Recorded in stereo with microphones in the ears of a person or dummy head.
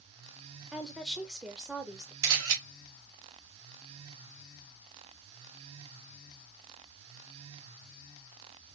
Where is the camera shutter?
75° right (ahead or behind), 1.9 m.